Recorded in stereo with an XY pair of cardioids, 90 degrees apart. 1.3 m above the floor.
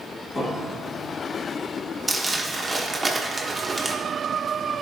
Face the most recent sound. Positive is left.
turn(degrees=-20)